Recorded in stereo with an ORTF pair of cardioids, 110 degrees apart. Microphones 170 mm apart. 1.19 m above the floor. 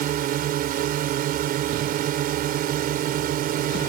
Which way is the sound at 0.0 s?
60° right.